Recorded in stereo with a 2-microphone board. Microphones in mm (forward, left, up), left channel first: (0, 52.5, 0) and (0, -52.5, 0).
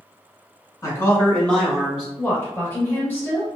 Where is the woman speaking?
20° left (ahead or behind), 1.7 m.